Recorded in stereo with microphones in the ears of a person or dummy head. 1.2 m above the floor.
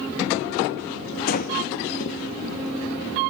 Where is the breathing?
45° left (ahead or behind), 2 m.